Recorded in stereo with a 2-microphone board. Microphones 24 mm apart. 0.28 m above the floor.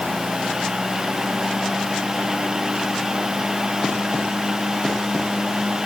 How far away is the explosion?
I don't hear an explosion.